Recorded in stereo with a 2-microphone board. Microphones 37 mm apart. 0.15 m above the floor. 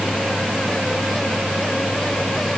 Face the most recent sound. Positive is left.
No sound to turn to.